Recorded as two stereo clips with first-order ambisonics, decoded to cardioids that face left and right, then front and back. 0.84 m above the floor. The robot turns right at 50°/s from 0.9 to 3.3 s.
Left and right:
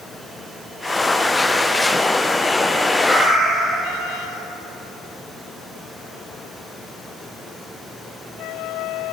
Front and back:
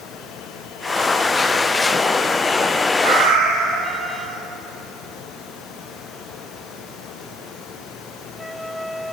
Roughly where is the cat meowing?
Behind.